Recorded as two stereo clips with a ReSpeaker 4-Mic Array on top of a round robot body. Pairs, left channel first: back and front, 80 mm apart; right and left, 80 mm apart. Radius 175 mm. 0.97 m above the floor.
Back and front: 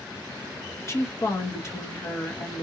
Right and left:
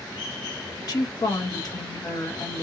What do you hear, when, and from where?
0.8 s a woman speaking: 125° right, 1.3 m